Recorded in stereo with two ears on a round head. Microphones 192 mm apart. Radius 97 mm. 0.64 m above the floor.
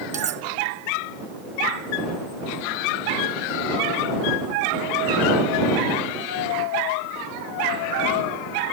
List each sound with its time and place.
0.1 s cutlery clinking: 35° right (ahead or behind)